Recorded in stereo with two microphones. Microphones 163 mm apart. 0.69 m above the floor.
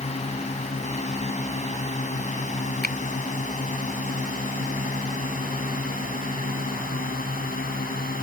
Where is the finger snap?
70° right (ahead or behind).